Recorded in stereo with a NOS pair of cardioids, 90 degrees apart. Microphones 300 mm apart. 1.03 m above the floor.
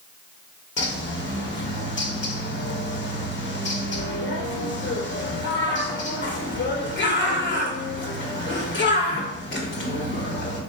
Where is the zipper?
No zipper in this recording.